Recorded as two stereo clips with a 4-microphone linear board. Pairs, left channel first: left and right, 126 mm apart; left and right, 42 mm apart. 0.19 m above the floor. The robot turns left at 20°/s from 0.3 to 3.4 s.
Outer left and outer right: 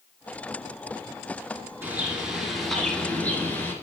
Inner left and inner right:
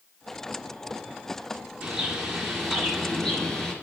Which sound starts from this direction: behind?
A bird, at 1.8 s.